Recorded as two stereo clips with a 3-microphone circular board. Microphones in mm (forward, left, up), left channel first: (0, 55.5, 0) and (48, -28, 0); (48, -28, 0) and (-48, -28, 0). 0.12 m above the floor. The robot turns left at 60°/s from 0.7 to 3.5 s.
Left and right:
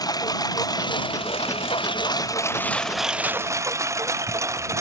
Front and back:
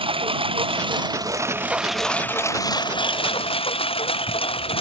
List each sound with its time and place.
0.0 s a lawn mower: 165° left; by 4.8 s straight ahead